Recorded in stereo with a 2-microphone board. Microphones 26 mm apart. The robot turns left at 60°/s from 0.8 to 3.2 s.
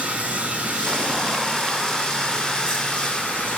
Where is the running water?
115° right, 7 m; by 3.6 s 100° left, 7 m.